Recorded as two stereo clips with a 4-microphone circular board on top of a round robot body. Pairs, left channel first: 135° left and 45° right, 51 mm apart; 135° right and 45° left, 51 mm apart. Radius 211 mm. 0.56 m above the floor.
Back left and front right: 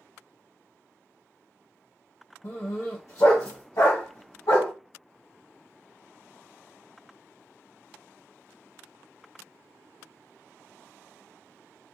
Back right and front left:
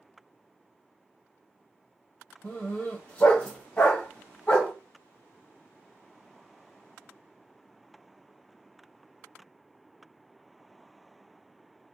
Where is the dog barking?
160° left, 1.5 m.